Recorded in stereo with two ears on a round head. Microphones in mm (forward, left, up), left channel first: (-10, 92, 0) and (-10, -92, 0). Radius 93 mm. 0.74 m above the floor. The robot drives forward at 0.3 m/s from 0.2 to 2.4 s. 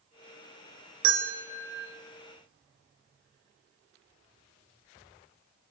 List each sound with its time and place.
1.0 s a bell: 80° right, 2.5 m; by 1.9 s 75° right (ahead or behind), 2.5 m